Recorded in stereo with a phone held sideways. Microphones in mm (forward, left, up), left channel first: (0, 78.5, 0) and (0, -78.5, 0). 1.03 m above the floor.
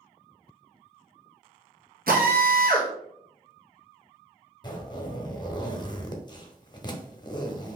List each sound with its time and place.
2.1 s a drill: 75° right (ahead or behind), 1.1 m
4.6 s a zipper: 30° left (ahead or behind), 0.7 m